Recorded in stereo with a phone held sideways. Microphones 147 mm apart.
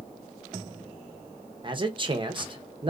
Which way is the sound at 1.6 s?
35° right (ahead or behind).